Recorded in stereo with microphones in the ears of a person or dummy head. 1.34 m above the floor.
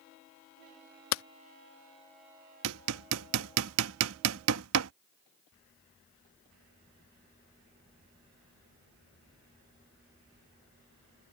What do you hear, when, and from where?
1.1 s hammering: 80° left
2.6 s hammering: 70° right (ahead or behind)